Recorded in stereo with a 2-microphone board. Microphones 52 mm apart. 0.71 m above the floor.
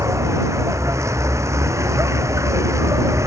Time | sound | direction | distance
0.0 | a vehicle | 65° right (ahead or behind) | ?